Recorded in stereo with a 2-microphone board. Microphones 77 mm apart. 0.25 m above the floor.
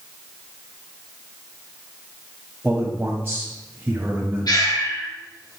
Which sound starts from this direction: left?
Breathing, at 4.5 s.